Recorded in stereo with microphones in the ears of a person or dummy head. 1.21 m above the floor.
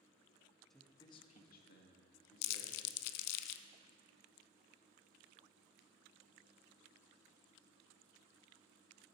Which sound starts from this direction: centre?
A man speaking, at 0.7 s.